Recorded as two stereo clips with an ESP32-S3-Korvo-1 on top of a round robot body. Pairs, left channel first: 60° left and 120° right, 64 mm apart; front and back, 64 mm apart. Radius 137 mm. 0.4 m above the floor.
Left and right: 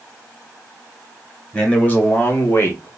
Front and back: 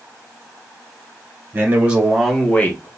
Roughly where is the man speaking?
Behind left.